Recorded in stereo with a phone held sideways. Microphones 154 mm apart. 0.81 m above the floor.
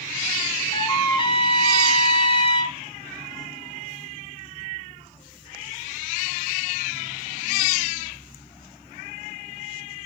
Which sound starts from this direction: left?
A trumpet, at 0.7 s.